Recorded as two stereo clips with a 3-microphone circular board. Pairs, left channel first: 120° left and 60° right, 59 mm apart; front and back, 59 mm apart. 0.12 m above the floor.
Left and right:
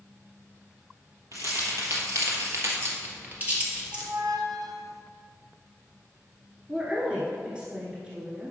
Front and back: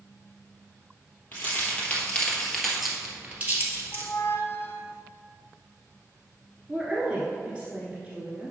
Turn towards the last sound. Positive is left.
turn(degrees=-120)